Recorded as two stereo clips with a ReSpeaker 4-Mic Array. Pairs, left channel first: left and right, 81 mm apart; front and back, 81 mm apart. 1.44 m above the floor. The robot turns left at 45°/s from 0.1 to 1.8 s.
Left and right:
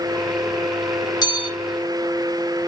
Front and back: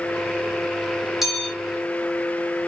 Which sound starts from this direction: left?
A bell, at 1.2 s.